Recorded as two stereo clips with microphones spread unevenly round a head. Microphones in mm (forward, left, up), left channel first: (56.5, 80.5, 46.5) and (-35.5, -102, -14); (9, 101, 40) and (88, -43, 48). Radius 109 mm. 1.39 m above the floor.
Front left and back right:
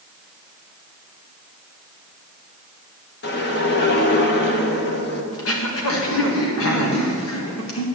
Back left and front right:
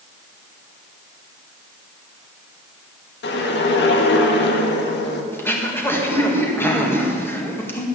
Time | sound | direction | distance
3.2 | a whoosh | 110° left | 1.5 m
5.3 | throat clearing | 40° left | 2 m